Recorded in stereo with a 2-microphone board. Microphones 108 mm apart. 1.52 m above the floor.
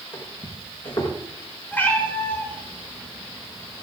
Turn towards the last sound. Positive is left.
turn(degrees=20)  # may be behind; listen again after turning